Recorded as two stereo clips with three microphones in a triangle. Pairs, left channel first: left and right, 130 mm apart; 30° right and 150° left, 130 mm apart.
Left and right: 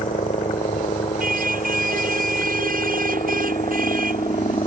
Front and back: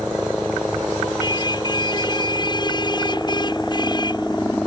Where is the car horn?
90° right.